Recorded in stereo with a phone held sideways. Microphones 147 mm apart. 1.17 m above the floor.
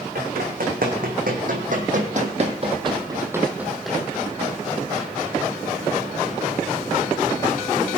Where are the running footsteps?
75° right (ahead or behind), 4 m; by 5.1 s 20° left (ahead or behind), 3.5 m.